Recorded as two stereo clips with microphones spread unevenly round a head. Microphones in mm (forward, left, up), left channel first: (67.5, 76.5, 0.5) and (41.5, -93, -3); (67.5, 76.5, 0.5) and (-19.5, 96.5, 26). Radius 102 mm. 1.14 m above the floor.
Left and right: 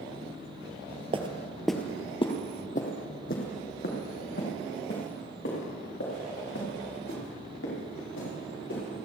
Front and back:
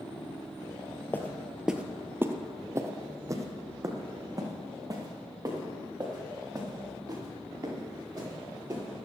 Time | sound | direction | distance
1.1 | footsteps | 100° right | 1.2 m